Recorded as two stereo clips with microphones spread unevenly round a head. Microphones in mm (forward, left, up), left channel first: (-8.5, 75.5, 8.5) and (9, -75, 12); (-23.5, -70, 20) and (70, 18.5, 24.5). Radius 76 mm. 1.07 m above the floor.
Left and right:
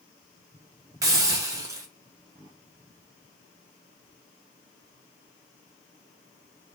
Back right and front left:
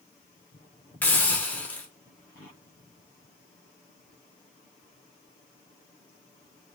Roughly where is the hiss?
Right.